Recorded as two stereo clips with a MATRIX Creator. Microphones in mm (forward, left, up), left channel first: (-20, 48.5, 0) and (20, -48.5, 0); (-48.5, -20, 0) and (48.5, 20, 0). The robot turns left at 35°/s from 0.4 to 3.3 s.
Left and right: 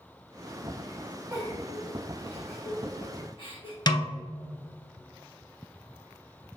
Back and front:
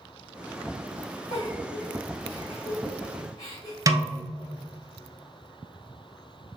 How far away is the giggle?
About 2.0 m.